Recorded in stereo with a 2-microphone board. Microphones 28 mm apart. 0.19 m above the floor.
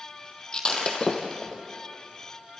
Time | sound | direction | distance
0.5 | breaking glass | 30° left (ahead or behind) | 2.5 m